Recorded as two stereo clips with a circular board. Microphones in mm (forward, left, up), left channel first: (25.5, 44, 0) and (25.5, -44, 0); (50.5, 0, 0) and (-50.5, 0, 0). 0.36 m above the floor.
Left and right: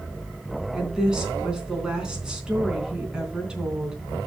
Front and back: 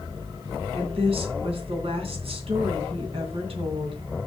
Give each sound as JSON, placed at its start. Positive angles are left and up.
{"t": 0.7, "sound": "a woman speaking", "azimuth_deg": -170, "distance_m": 3.5}